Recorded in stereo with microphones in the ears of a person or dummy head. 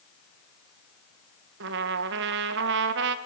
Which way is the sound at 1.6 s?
65° right (ahead or behind).